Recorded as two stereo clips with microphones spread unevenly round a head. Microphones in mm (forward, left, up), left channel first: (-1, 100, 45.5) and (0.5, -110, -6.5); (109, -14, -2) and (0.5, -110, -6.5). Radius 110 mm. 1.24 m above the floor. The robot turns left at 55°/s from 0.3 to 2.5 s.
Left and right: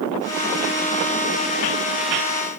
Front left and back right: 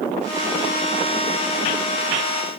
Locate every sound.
Only background noise.